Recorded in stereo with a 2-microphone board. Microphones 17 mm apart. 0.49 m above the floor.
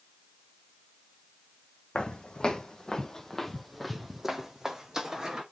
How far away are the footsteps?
About 1.1 m.